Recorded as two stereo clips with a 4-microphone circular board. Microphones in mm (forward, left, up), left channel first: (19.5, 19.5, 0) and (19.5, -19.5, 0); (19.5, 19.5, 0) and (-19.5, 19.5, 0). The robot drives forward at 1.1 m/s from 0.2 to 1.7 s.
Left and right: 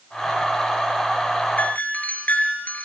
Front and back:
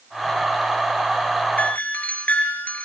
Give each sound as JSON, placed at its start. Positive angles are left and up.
{"t": 1.6, "sound": "a doorbell", "azimuth_deg": 45, "distance_m": 4.5}